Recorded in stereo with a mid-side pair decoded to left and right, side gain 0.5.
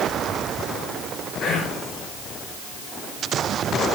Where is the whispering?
45° left, 4.5 m.